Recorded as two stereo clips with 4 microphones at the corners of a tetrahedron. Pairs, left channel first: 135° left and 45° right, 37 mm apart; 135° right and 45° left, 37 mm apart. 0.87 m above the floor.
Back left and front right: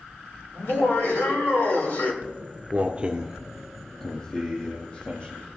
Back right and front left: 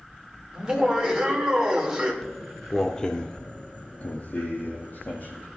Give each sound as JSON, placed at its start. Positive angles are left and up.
{"t": 0.5, "sound": "laughter", "azimuth_deg": 115, "distance_m": 2.5}
{"t": 2.2, "sound": "footsteps", "azimuth_deg": -40, "distance_m": 1.1}